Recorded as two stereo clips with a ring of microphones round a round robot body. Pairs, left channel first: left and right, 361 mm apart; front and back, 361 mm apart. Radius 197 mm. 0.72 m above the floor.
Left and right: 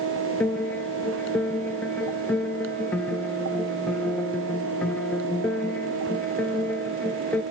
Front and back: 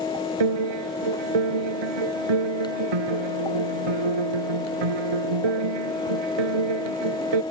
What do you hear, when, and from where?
0.4 s a piano: 175° left